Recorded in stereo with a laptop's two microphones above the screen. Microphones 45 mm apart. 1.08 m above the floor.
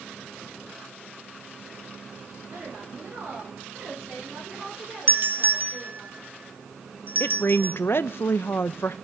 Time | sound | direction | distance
2.5 | a woman speaking | 60° right (ahead or behind) | 4 m
5.1 | a doorbell | 45° right (ahead or behind) | 0.9 m
7.2 | a woman speaking | 55° left (ahead or behind) | 0.6 m